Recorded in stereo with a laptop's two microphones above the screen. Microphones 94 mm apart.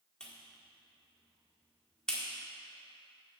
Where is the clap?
10° left (ahead or behind), 1.9 m.